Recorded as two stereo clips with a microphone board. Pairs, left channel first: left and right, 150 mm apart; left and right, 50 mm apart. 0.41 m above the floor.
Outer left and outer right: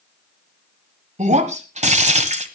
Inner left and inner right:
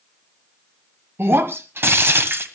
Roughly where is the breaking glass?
Right.